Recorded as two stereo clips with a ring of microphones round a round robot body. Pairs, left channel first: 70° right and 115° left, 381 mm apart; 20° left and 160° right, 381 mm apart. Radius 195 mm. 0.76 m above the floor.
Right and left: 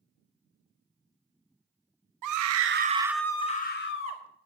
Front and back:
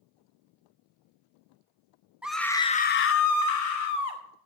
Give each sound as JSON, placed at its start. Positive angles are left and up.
{"t": 2.2, "sound": "a scream", "azimuth_deg": 115, "distance_m": 0.8}